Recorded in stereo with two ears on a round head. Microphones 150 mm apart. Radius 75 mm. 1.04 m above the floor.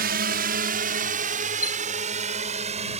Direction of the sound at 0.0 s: 55° right (ahead or behind).